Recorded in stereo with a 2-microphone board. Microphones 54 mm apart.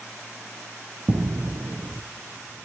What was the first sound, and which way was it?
Footsteps, 60° right (ahead or behind).